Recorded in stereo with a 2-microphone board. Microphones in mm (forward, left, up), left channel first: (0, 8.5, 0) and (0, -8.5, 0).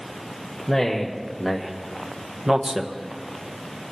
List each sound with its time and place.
0.7 s a man speaking: 10° left (ahead or behind), 1.8 m; by 3.9 s 35° right (ahead or behind), 2.5 m